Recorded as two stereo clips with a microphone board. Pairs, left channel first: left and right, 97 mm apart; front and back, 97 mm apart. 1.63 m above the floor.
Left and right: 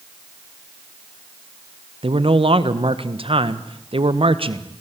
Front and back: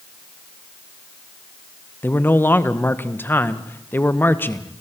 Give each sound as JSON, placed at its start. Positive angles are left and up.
{"t": 2.0, "sound": "a man speaking", "azimuth_deg": -65, "distance_m": 1.4}